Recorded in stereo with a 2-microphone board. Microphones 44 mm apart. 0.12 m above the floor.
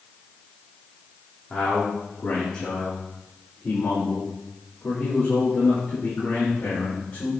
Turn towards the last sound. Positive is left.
turn(degrees=40)  # may be behind; listen again after turning